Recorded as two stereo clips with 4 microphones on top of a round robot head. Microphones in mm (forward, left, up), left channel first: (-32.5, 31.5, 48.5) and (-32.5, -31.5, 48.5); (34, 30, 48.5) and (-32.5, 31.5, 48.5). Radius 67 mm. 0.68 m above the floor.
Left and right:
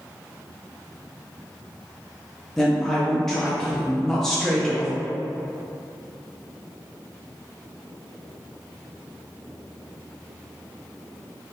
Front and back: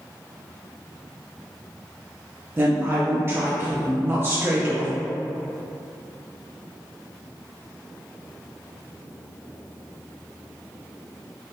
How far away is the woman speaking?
About 0.9 m.